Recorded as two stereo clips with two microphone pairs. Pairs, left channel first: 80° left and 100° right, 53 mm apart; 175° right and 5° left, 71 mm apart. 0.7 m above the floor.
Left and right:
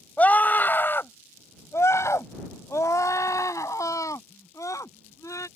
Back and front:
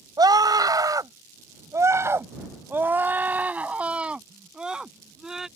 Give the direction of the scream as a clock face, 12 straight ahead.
11 o'clock.